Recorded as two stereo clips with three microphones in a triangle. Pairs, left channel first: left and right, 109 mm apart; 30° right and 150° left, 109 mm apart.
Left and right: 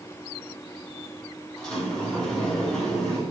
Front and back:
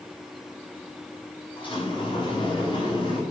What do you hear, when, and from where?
1.6 s a sliding door: 5° left, 5 m